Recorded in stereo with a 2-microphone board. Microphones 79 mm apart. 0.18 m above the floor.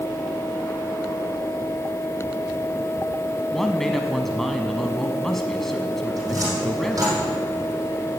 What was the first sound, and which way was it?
A man speaking, 5° left (ahead or behind).